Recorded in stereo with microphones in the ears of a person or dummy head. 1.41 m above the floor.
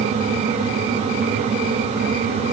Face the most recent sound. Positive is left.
No sound to turn to.